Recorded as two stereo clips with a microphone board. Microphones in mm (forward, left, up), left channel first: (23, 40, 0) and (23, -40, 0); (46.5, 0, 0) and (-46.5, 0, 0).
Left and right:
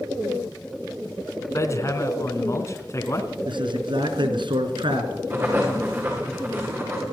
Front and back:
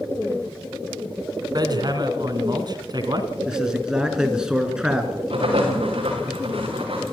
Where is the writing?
155° right, 8.5 m.